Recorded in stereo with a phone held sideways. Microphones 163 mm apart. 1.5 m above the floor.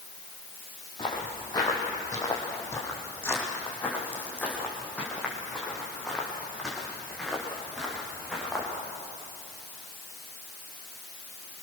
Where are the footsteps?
25° left (ahead or behind), 4.5 m; by 8.7 s centre (ahead or behind), 7.5 m.